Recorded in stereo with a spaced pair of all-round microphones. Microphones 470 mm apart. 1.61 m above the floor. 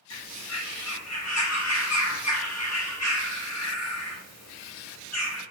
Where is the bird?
35° left (ahead or behind), 0.9 m.